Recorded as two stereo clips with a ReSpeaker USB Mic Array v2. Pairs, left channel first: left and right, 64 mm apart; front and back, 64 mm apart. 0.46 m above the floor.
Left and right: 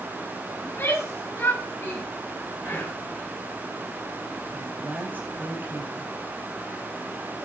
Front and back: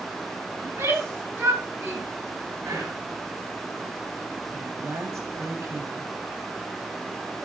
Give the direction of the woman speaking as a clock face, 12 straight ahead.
5 o'clock.